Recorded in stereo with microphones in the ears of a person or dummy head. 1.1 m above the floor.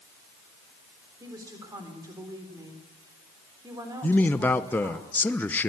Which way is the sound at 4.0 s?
10° left (ahead or behind).